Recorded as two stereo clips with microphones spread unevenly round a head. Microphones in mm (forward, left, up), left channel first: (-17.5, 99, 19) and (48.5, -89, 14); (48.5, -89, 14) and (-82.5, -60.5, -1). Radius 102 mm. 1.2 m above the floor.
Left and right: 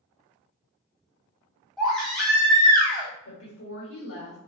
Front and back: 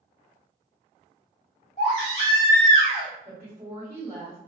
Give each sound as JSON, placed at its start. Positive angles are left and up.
{"t": 1.8, "sound": "a baby crying", "azimuth_deg": 20, "distance_m": 1.2}
{"t": 3.2, "sound": "a woman speaking", "azimuth_deg": 90, "distance_m": 1.2}